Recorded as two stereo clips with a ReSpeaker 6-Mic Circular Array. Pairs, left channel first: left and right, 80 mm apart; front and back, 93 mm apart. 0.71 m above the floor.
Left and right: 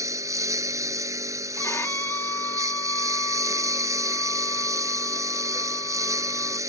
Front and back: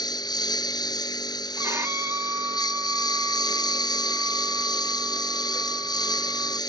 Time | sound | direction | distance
0.0 | a lawn mower | 40° right | ?
1.6 | a violin | 135° left | ?